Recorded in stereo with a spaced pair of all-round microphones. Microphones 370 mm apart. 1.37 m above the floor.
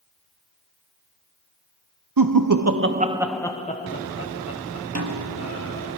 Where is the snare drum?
45° right (ahead or behind), 1.8 m.